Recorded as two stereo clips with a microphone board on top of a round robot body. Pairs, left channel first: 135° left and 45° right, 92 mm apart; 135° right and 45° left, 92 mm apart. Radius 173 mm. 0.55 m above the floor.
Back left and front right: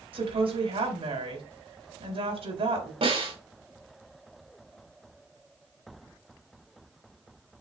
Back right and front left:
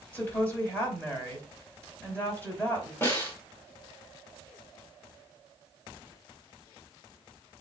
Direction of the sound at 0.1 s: 65° right.